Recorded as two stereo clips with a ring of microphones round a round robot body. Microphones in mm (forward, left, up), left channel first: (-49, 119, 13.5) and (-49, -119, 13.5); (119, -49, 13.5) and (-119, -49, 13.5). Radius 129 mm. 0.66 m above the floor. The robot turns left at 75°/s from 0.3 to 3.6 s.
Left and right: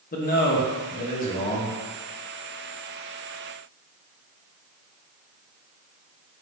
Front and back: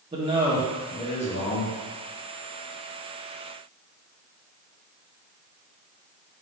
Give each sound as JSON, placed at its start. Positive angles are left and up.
{"t": 0.1, "sound": "a man speaking", "azimuth_deg": 120, "distance_m": 0.7}